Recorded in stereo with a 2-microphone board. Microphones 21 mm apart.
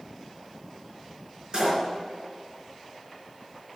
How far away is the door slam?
About 4 m.